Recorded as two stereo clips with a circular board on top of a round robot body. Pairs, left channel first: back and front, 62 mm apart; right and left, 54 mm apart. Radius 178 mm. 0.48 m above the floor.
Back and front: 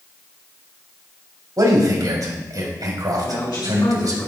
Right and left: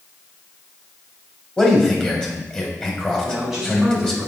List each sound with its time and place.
1.6 s a man speaking: 20° right, 3.5 m
3.2 s a man speaking: 170° left, 5 m